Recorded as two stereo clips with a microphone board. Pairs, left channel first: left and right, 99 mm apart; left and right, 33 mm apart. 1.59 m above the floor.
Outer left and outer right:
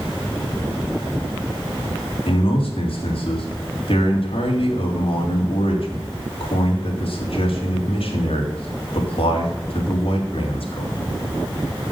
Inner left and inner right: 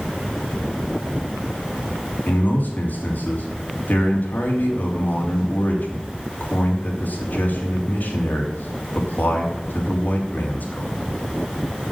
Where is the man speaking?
70° left (ahead or behind), 3 m.